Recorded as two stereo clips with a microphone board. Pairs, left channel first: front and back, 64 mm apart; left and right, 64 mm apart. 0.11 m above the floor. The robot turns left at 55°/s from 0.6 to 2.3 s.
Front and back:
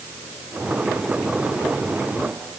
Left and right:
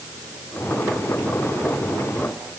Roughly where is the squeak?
I don't hear a squeak.